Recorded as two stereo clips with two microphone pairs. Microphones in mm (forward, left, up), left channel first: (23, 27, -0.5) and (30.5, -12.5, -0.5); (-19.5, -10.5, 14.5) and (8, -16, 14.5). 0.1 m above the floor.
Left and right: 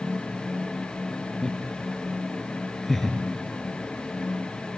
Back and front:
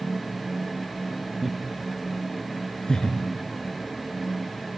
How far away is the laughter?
About 1.8 m.